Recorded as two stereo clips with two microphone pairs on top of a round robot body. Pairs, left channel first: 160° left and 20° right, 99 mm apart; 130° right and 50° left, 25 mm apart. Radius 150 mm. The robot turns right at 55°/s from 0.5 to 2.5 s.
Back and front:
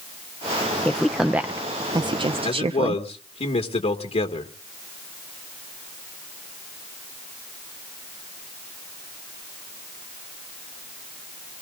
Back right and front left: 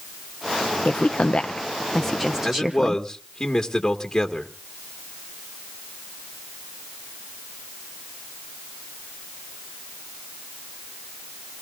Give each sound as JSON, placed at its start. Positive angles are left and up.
{"t": 0.8, "sound": "a woman speaking", "azimuth_deg": -120, "distance_m": 0.6}
{"t": 2.4, "sound": "a man speaking", "azimuth_deg": 155, "distance_m": 1.8}